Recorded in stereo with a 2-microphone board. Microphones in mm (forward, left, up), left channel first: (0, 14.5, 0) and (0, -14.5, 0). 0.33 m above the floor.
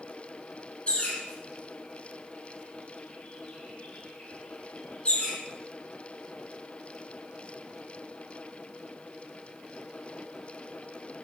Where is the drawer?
No drawer in this recording.